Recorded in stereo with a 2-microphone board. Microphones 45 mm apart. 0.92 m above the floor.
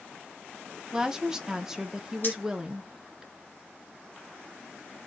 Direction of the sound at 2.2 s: 45° left (ahead or behind).